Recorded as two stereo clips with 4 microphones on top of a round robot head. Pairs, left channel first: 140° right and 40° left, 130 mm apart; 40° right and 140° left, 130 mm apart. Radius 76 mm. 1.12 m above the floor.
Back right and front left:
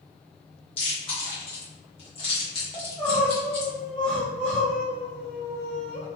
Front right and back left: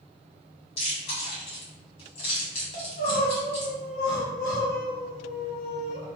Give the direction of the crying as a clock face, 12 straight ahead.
2 o'clock.